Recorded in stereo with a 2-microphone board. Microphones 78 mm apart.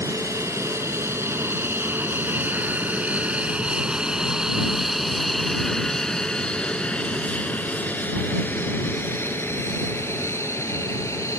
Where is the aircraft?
45° right (ahead or behind); by 11.4 s 40° left (ahead or behind).